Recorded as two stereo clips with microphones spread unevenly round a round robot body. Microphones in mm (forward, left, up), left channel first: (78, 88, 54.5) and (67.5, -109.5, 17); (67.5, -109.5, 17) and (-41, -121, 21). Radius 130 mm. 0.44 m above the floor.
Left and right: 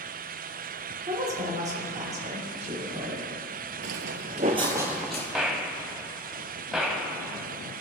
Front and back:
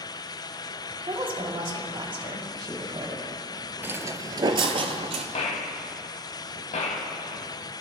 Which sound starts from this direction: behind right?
A woman speaking, at 1.1 s.